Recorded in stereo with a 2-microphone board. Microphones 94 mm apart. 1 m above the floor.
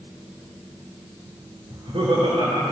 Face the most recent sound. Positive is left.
turn(degrees=-70)  # may be behind; listen again after turning